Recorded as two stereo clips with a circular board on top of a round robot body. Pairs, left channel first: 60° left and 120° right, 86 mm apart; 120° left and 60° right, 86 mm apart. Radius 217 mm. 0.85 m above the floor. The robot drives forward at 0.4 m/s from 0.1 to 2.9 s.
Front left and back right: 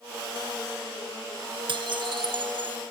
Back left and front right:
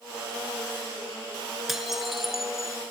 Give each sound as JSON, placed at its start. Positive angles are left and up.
{"t": 1.7, "sound": "dishes clattering", "azimuth_deg": -145}